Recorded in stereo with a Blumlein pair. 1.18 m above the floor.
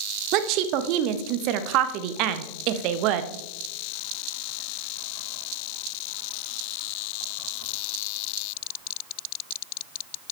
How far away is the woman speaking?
About 0.9 m.